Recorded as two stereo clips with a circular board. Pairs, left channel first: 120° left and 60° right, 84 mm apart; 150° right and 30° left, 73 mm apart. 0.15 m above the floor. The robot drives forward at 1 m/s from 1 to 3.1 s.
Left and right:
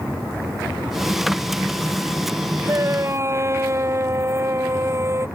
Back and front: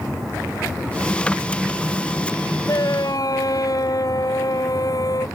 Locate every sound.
2.7 s a shout: 115° right; by 5.3 s 120° right